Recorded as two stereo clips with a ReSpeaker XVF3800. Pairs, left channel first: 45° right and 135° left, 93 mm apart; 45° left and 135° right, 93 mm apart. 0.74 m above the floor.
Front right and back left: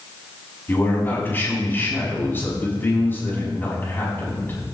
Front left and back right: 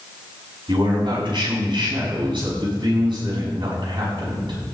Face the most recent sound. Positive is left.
turn(degrees=-110)